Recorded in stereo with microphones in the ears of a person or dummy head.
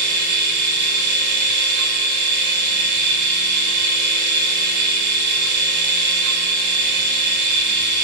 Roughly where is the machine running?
Right.